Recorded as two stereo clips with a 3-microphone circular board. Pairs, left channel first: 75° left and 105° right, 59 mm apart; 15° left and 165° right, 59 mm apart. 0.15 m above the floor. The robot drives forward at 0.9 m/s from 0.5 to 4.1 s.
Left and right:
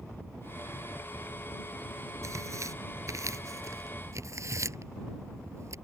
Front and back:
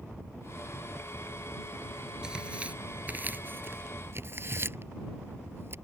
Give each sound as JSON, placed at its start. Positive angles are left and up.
{"t": 2.2, "sound": "tearing paper", "azimuth_deg": -90}